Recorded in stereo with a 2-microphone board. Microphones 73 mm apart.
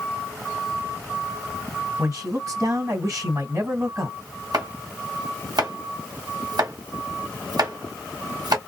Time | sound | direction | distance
2.0 | a man speaking | 45° right (ahead or behind) | 2 m
4.5 | chopping | 60° right (ahead or behind) | 2.5 m